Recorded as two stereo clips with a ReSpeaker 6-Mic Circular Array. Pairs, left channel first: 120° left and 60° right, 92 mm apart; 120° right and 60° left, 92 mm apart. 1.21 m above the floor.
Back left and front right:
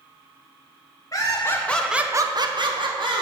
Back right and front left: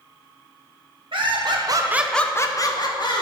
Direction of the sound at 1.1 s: 70° left.